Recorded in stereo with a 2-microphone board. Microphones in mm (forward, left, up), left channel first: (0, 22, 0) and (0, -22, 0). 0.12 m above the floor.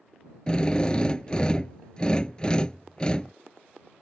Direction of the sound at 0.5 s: 20° left (ahead or behind).